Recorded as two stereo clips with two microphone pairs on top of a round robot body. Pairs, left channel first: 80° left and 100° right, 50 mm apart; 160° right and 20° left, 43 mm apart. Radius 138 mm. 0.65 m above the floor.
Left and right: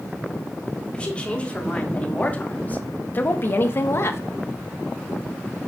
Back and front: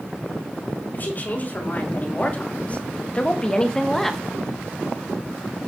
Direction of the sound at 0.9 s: 150° left.